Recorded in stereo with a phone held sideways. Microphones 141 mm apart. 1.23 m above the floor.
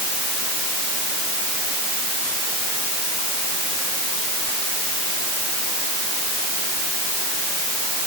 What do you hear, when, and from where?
Only background noise.